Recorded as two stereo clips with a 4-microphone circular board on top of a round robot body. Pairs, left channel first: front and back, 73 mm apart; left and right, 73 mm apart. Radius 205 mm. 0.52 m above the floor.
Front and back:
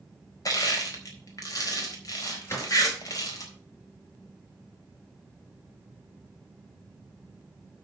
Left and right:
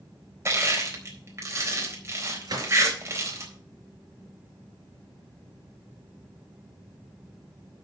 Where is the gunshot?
55° right, 4.5 m.